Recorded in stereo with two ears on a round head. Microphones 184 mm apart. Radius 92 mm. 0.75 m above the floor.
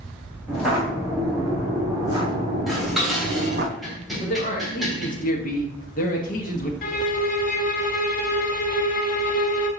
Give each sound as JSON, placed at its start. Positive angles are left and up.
{"t": 0.5, "sound": "footsteps", "side_deg": -5, "distance_m": 3.5}
{"t": 2.7, "sound": "dishes clattering", "side_deg": 0, "distance_m": 2.5}
{"t": 4.2, "sound": "a man speaking", "side_deg": 40, "distance_m": 1.0}
{"t": 6.8, "sound": "a violin", "side_deg": 45, "distance_m": 0.8}